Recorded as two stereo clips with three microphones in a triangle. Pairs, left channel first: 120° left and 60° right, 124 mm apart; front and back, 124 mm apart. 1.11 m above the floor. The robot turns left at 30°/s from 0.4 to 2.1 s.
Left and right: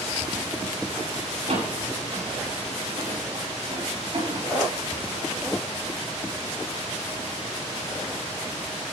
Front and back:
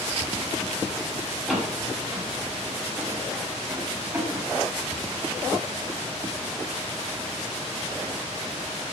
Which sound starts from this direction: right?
A door slam, at 1.5 s.